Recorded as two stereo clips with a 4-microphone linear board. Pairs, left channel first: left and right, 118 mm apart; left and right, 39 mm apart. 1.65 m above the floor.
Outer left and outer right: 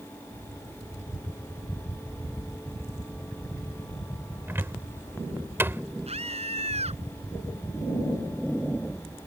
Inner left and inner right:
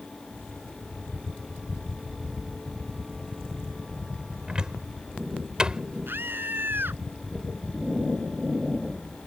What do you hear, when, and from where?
4.5 s a cupboard door: 20° right (ahead or behind)
6.1 s a scream: 65° right (ahead or behind)